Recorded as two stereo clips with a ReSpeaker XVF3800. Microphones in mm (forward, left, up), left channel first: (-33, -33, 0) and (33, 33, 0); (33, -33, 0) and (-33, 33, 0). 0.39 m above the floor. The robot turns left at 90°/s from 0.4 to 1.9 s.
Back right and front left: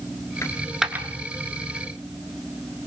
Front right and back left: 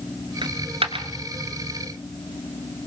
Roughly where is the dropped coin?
Behind.